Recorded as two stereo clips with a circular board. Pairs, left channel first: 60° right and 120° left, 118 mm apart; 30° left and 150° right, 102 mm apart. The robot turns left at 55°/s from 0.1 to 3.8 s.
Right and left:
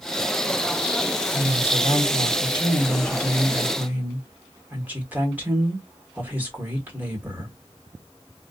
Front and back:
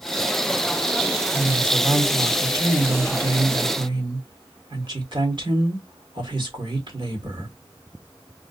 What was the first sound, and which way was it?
A woman speaking, 30° right.